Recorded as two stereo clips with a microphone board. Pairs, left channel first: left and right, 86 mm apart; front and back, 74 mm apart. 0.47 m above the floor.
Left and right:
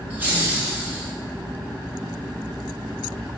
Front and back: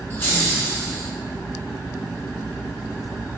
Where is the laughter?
35° right, 1.5 m.